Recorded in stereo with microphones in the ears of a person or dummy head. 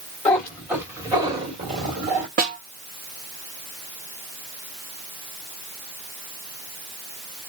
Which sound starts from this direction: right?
A snare drum, at 2.4 s.